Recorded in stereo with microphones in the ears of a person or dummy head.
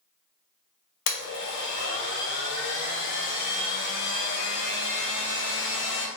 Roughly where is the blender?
Left.